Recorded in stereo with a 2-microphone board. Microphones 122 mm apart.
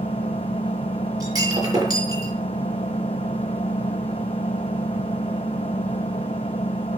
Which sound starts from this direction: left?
An engine running, at 0.0 s.